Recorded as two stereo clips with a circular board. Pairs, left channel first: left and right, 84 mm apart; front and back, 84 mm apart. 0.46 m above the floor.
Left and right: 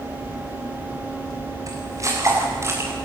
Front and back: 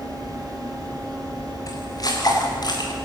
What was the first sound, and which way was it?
Footsteps, 45° right.